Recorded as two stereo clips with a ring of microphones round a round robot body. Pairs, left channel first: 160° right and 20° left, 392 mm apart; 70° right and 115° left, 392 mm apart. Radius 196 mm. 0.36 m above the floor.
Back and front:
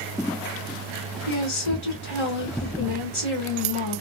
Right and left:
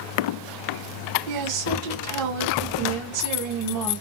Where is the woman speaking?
145° left, 2.5 m.